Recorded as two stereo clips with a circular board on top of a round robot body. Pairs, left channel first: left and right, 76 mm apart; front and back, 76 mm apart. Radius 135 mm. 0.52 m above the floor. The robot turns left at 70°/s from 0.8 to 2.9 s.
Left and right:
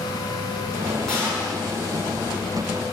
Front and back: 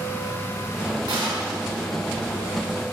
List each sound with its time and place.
1.1 s a gunshot: 175° left, 5 m; by 1.6 s 135° left, 5 m